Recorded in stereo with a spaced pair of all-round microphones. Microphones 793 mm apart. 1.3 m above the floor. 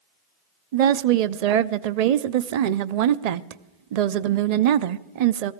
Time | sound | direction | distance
0.7 | a woman speaking | 60° right (ahead or behind) | 0.5 m